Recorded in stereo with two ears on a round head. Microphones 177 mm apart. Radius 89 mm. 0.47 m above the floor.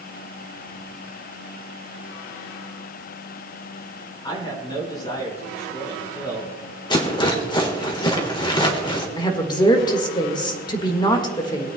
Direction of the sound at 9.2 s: 25° left (ahead or behind).